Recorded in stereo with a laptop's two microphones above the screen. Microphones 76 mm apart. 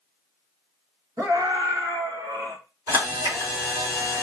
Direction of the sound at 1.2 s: 55° right (ahead or behind).